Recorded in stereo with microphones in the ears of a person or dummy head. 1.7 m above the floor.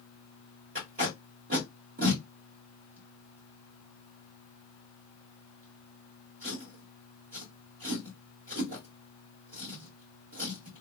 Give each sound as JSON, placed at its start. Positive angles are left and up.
{"t": 0.8, "sound": "tape being pulled", "side_deg": -35, "distance_m": 1.4}